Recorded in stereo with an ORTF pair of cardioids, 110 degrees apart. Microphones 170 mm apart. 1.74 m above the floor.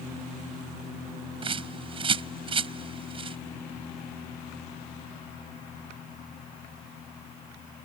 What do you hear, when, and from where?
1.4 s a bird: 30° right